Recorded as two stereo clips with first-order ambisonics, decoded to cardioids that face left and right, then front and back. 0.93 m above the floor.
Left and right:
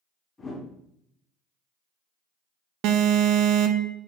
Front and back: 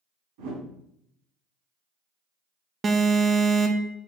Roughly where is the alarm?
Right.